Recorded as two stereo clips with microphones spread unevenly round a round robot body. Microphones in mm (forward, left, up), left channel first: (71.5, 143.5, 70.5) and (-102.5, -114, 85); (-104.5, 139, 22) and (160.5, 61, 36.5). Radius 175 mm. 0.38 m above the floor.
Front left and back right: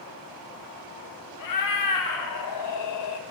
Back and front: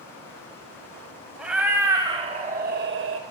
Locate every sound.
1.4 s a cat meowing: 70° left, 1.3 m; by 3.2 s 25° left, 0.8 m